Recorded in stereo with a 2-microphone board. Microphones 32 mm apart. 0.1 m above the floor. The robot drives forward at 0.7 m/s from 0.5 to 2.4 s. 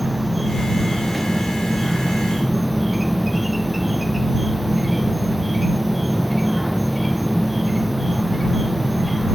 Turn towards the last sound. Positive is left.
turn(degrees=0)  # may be behind; listen again after turning